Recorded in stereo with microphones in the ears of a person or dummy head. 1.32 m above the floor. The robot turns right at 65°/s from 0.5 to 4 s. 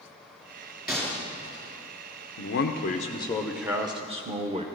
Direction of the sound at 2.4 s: 100° left.